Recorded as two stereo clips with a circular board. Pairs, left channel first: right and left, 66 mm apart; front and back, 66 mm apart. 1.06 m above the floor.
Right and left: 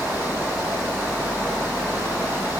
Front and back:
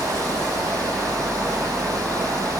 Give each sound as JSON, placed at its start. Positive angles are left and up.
{"t": 0.0, "sound": "running water", "azimuth_deg": 165, "distance_m": 4.0}